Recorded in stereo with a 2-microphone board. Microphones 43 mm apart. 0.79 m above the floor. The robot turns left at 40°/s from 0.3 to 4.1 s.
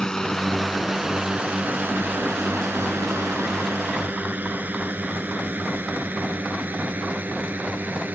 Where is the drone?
15° left (ahead or behind); by 8.2 s 45° right (ahead or behind).